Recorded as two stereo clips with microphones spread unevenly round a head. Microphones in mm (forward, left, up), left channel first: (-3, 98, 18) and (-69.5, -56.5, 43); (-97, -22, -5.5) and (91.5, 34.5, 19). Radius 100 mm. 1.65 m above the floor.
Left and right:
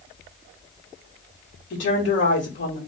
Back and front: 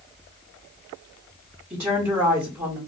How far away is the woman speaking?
About 1.5 m.